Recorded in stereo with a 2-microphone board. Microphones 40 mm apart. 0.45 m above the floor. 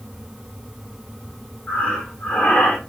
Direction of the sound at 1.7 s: 35° left (ahead or behind).